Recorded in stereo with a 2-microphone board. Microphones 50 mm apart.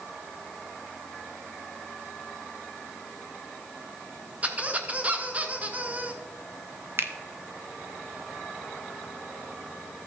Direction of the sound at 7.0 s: 50° right (ahead or behind).